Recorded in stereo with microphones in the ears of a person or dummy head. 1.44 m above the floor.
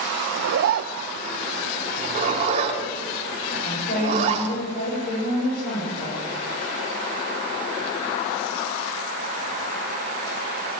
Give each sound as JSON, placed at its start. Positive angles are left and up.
{"t": 0.3, "sound": "a zipper", "side_deg": -60, "distance_m": 0.6}
{"t": 2.0, "sound": "a zipper", "side_deg": -35, "distance_m": 4.0}
{"t": 3.6, "sound": "a woman speaking", "side_deg": 60, "distance_m": 7.5}